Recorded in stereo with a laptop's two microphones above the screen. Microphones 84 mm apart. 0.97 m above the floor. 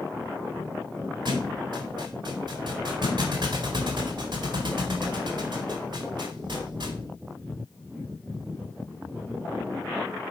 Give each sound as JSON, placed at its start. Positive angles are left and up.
{"t": 1.2, "sound": "a thud", "side_deg": -65, "distance_m": 1.9}